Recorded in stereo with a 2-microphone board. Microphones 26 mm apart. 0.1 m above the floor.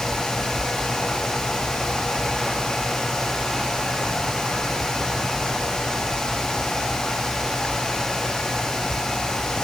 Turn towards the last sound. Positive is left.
No sound to turn to.